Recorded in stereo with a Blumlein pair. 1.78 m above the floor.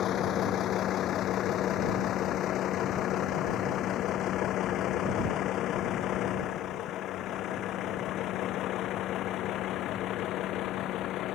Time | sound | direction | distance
0.0 | a vehicle | 30° left | ?